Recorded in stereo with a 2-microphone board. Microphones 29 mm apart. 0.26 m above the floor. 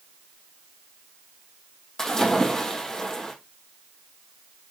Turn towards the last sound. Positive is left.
turn(degrees=20)  # may be behind; listen again after turning